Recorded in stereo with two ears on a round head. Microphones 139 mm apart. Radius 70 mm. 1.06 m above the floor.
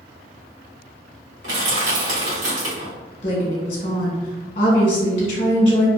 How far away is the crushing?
About 1.3 m.